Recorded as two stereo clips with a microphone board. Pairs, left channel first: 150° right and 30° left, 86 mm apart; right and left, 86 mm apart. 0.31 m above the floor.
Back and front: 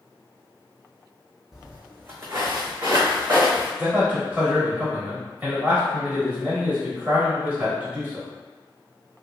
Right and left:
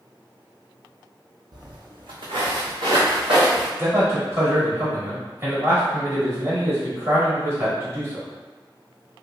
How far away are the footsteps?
About 0.7 m.